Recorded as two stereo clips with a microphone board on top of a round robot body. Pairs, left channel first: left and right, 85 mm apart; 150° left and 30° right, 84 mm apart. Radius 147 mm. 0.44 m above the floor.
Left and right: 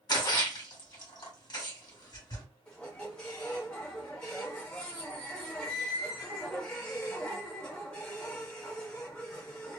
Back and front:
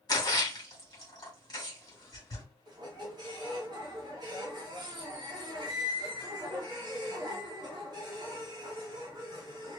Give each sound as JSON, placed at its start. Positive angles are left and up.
{"t": 0.1, "sound": "a splash", "azimuth_deg": 115, "distance_m": 1.8}
{"t": 2.7, "sound": "a squeak", "azimuth_deg": 10, "distance_m": 0.8}